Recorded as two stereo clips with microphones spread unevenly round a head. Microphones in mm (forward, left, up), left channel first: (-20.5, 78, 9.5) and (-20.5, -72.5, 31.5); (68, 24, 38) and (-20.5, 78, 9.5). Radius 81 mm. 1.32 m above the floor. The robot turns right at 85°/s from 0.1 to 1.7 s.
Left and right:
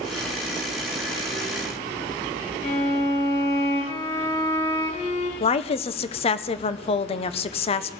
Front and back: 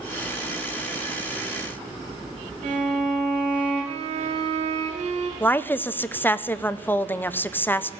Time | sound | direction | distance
2.6 | a violin | 140° left | 3.5 m
5.4 | a woman speaking | 45° left | 0.7 m